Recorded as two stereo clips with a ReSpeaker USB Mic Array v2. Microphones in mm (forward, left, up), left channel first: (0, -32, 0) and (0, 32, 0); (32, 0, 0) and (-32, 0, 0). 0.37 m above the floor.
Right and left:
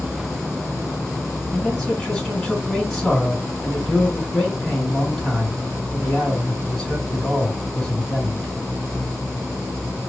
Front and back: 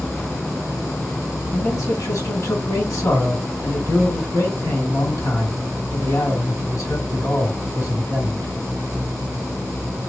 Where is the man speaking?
5° right, 3 m.